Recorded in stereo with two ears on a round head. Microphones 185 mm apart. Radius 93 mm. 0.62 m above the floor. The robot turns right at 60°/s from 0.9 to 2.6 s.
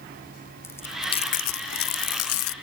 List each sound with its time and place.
0.6 s chewing: 10° left, 0.5 m; by 2.5 s 110° left, 0.5 m